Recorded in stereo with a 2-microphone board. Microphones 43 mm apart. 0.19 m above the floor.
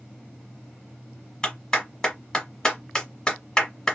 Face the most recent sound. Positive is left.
turn(degrees=20)  # may be behind; listen again after turning